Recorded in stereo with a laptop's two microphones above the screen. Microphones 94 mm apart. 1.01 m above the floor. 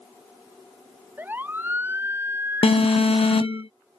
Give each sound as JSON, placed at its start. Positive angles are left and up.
{"t": 1.2, "sound": "a siren", "side_deg": -20}
{"t": 2.6, "sound": "an alarm", "side_deg": 85}